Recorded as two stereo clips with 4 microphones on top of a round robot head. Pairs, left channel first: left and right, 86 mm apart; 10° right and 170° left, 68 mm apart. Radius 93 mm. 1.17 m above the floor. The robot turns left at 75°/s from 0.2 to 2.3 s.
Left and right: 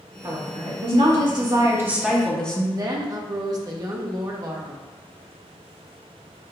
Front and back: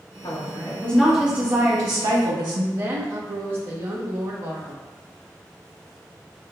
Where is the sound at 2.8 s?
135° right, 1.3 m.